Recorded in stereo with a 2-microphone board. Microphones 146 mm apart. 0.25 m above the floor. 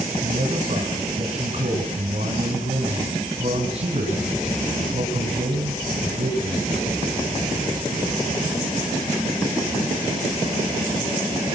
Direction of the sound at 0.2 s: 45° right (ahead or behind).